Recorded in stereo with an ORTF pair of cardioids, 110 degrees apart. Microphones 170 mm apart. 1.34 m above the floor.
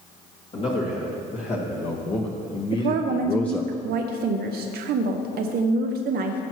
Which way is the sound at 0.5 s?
45° left.